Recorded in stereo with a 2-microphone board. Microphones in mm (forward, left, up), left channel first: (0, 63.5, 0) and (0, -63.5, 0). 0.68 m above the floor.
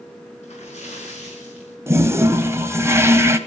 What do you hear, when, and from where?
0.4 s a splash: 60° left (ahead or behind), 6 m
1.9 s a toilet flushing: 20° right (ahead or behind), 1.3 m